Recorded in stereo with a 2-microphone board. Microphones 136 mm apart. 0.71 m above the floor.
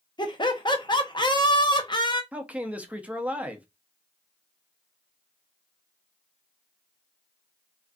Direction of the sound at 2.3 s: 10° right (ahead or behind).